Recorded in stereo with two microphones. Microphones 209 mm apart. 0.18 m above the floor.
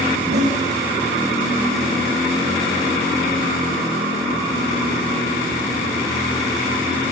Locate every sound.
0.1 s a zipper: 50° right (ahead or behind), 9.5 m